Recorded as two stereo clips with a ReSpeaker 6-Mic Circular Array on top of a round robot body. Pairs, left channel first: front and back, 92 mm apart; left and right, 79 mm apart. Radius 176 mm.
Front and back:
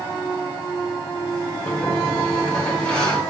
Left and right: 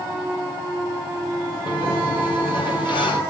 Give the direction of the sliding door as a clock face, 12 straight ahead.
9 o'clock.